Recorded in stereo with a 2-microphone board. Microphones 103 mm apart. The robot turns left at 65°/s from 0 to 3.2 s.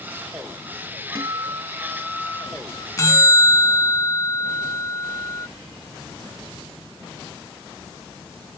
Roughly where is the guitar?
Behind right.